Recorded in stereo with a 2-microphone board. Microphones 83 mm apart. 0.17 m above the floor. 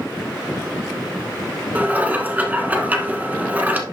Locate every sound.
1.8 s dishes clattering: 20° right (ahead or behind), 1.3 m